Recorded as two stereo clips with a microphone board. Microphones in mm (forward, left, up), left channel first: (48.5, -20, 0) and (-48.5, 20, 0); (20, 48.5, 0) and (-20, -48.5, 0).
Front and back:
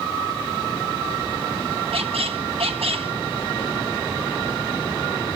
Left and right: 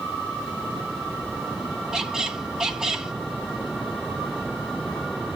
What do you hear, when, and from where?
1.9 s a squeak: 165° left, 0.9 m